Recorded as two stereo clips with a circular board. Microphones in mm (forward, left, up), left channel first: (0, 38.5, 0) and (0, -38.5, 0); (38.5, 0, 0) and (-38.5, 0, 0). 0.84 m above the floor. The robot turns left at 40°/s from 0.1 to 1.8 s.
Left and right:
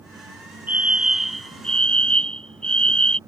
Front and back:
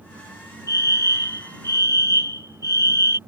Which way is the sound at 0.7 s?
155° right.